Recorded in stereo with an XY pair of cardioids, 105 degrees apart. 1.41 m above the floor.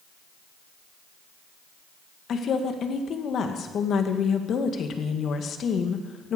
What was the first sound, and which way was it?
A woman speaking, 60° left.